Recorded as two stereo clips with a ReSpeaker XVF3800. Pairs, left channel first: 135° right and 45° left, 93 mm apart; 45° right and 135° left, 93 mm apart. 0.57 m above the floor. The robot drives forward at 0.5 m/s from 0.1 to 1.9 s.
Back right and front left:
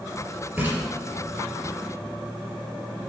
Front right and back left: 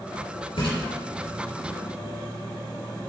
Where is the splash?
25° right, 4.5 m.